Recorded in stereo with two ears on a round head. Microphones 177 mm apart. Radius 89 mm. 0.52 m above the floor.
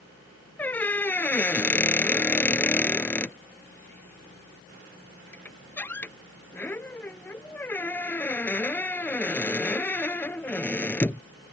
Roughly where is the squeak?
Centre.